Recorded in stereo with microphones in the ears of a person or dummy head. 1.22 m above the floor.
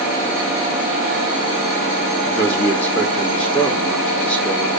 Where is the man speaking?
5° left (ahead or behind), 0.7 m.